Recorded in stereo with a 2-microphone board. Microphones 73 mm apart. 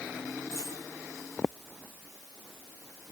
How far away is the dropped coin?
About 9 m.